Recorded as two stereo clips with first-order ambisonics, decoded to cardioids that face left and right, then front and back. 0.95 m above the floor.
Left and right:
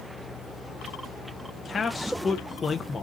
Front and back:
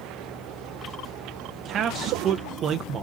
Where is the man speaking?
145° left, 0.5 m.